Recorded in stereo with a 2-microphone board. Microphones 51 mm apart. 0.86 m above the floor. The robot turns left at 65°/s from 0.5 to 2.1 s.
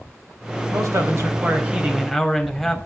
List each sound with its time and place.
0.7 s a man speaking: 85° right, 4 m; by 2.8 s straight behind, 4 m